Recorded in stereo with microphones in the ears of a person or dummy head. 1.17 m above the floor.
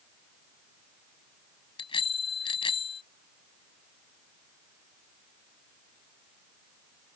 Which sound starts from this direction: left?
A bicycle bell, at 1.8 s.